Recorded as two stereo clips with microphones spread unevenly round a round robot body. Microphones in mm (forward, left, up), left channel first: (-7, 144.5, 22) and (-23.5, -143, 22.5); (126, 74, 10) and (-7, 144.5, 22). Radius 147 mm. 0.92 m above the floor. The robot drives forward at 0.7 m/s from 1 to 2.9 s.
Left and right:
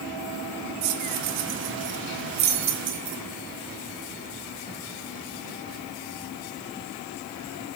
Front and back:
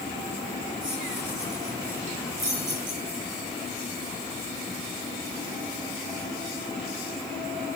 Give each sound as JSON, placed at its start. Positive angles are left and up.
{"t": 0.8, "sound": "keys jangling", "azimuth_deg": -120, "distance_m": 2.0}